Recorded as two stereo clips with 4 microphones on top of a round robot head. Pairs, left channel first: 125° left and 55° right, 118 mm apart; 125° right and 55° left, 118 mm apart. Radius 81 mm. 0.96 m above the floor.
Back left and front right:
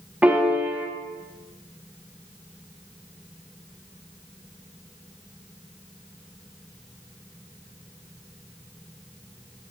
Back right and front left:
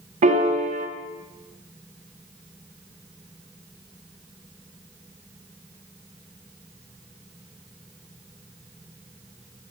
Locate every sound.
0.2 s a piano: 25° left, 0.6 m